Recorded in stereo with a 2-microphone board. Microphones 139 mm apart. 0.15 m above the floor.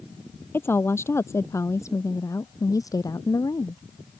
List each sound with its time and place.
0.5 s a woman speaking: 15° left (ahead or behind); by 3.8 s 25° left (ahead or behind)